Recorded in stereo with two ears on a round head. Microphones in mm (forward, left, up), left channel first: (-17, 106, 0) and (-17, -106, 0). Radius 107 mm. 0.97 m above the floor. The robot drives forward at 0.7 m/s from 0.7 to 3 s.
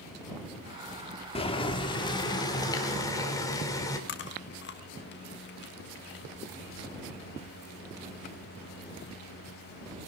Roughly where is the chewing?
Left.